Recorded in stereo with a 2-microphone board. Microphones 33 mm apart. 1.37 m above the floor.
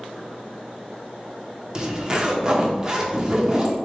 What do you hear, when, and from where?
1.8 s a zipper: 20° right (ahead or behind), 0.6 m